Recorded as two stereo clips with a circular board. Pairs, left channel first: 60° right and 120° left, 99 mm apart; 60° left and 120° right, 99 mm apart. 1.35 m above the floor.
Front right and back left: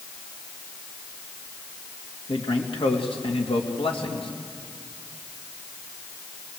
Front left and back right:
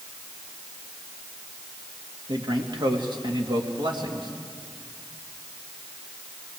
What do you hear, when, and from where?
2.3 s a man speaking: 80° right, 2.5 m